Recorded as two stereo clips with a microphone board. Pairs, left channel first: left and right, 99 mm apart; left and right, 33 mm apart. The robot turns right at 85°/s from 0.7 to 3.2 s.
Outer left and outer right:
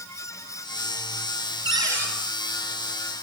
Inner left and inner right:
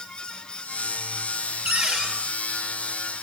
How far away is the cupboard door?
About 3.5 m.